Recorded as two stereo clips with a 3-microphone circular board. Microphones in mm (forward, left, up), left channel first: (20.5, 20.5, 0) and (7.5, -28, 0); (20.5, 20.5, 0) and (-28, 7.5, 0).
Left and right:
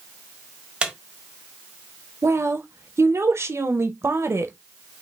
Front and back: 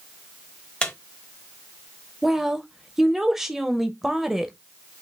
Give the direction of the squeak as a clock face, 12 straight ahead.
1 o'clock.